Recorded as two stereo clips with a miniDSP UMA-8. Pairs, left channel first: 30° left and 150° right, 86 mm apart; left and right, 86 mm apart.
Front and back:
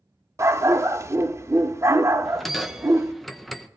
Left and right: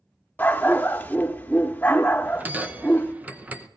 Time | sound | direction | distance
0.4 | a dog barking | 160° left | 0.7 m
2.2 | a bell | 55° right | 0.8 m